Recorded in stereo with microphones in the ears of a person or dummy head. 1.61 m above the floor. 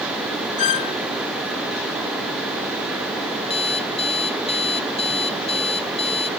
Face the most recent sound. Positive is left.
turn(degrees=35)  # may be behind; listen again after turning